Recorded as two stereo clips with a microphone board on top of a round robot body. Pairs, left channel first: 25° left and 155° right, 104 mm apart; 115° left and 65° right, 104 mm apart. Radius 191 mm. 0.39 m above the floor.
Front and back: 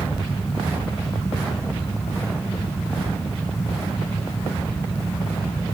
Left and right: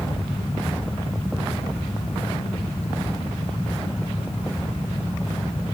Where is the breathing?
No breathing in this recording.